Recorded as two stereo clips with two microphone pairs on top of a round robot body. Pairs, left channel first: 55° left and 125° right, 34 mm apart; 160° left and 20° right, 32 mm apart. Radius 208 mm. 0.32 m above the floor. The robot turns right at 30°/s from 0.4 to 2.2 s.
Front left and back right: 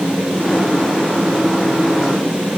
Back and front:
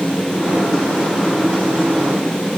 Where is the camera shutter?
I don't hear a camera shutter.